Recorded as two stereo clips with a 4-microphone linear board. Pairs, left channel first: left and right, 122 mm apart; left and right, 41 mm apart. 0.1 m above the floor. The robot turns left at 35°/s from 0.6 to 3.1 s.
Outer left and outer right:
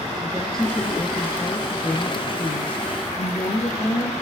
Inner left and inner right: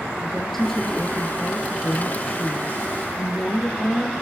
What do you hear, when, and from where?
0.2 s a woman speaking: 170° left, 2.5 m; by 4.1 s 85° left, 2.5 m